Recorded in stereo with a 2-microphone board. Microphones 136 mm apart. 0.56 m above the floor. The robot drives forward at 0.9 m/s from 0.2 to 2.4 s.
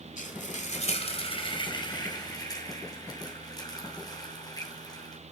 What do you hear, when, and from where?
0.2 s frying: 70° left (ahead or behind), 1.4 m; by 5.2 s 30° left (ahead or behind), 2.5 m